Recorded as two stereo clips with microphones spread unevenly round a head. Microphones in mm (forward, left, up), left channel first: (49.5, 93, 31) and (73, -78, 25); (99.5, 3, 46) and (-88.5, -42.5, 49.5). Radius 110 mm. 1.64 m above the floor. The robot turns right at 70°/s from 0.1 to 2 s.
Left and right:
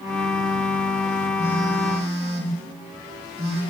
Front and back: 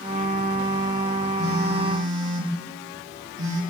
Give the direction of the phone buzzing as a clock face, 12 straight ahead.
6 o'clock.